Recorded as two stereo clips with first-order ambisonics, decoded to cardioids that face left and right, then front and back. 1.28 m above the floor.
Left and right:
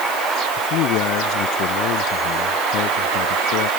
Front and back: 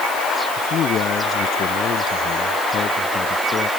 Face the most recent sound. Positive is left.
turn(degrees=65)